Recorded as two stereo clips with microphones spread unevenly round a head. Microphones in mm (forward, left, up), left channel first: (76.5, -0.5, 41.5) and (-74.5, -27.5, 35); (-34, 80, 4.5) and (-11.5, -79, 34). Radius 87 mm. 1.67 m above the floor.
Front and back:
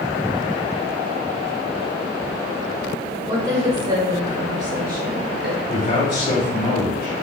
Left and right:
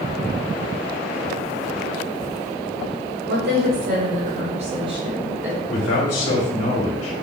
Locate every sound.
3.3 s a woman speaking: 100° right, 1.8 m; by 5.6 s 160° right, 1.4 m
5.7 s a man speaking: 75° left, 1.9 m